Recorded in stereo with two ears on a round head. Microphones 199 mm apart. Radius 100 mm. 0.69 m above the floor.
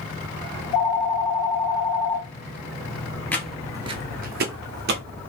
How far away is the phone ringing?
About 0.9 m.